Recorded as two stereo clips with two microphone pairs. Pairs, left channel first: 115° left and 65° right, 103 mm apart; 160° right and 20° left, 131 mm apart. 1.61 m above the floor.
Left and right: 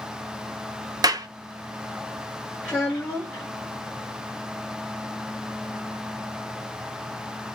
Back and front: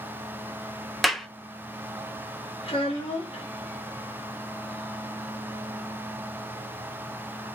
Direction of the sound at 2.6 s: 170° right.